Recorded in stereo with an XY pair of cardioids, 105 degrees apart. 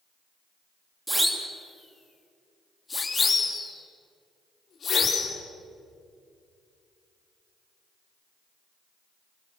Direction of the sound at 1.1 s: 10° right.